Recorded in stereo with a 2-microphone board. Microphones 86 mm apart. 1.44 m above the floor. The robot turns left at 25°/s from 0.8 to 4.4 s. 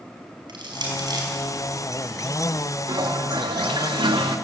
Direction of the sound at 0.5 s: 60° right (ahead or behind).